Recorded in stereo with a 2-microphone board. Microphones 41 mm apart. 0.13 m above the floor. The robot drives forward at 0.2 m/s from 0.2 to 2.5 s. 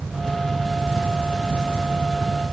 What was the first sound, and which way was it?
Only background noise.